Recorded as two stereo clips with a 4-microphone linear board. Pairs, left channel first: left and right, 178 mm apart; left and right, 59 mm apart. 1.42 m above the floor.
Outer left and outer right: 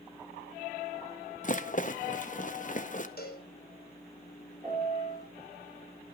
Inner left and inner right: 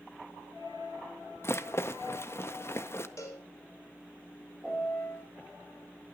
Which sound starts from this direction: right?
A piano, at 4.6 s.